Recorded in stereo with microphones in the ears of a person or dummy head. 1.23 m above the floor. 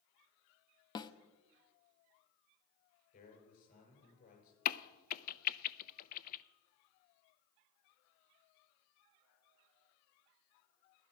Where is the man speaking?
50° left (ahead or behind), 6.5 m.